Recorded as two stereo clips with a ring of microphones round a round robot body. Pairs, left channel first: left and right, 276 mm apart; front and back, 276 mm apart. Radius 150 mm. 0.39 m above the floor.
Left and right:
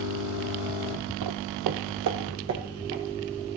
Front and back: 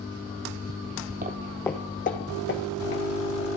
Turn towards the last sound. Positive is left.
turn(degrees=-45)